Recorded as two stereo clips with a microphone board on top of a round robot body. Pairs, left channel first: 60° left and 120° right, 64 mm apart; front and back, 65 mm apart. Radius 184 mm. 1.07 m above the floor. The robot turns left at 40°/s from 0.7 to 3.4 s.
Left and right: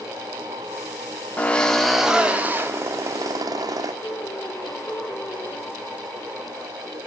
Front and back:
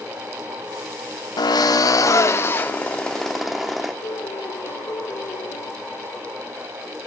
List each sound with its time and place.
1.4 s a drill: 10° right, 1.4 m; by 3.9 s 90° right, 1.4 m
4.0 s a piano: 10° left, 1.3 m